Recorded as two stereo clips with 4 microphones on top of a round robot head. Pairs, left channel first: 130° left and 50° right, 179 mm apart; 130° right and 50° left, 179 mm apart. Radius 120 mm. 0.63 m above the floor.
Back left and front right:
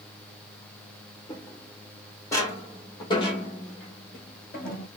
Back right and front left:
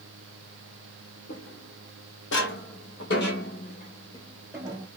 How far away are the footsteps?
About 2 m.